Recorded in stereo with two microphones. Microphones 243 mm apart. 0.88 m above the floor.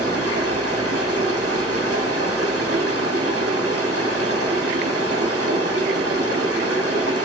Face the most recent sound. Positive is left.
turn(degrees=-70)  # may be behind; listen again after turning